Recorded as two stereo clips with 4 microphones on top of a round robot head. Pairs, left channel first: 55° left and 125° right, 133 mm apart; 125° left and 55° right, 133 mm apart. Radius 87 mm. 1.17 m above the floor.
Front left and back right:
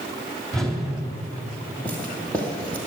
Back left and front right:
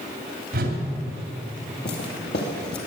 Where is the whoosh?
35° right, 3 m.